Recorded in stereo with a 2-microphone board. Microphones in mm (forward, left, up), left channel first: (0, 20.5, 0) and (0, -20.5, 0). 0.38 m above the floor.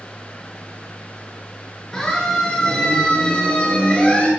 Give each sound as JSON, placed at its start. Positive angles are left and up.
{"t": 1.9, "sound": "a siren", "side_deg": 15, "distance_m": 6.0}